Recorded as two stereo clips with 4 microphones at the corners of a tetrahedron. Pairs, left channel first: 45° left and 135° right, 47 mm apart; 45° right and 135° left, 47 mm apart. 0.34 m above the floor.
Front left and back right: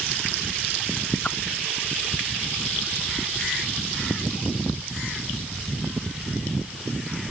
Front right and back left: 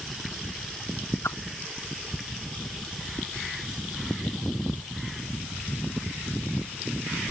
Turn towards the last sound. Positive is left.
turn(degrees=-20)